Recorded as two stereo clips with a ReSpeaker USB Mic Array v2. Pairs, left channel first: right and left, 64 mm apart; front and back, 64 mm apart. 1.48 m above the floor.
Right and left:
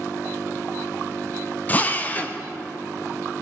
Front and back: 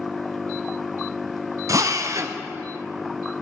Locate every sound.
1.7 s a drill: 150° right, 0.9 m